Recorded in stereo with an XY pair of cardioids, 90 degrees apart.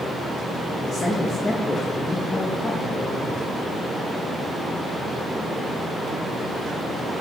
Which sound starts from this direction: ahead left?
A man speaking, at 0.9 s.